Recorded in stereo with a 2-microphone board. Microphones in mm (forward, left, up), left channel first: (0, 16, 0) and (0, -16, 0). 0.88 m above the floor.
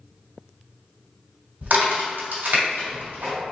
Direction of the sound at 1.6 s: 75° right (ahead or behind).